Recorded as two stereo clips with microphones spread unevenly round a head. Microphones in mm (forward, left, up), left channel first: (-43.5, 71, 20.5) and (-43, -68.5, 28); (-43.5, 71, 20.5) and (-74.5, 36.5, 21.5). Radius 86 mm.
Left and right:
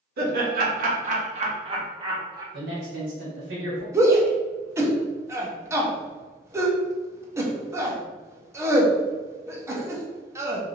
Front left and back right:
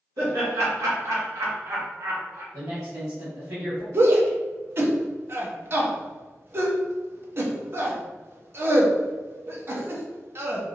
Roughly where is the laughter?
Right.